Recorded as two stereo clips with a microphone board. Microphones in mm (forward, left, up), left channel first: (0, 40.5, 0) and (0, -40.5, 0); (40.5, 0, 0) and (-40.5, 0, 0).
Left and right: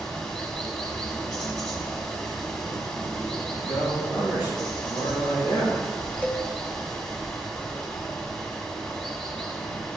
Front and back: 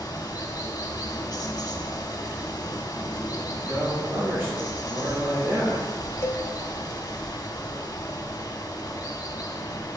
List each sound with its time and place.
0.0 s running water: 15° left, 1.4 m
3.6 s a man speaking: 120° left, 3.5 m
6.2 s a cowbell: 30° left, 0.7 m